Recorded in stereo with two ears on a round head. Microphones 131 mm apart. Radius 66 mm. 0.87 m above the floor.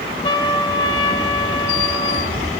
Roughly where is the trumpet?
Left.